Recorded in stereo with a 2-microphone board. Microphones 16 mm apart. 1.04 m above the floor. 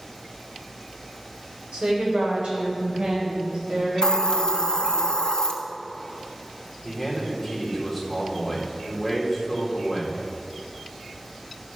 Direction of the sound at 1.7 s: 70° right (ahead or behind).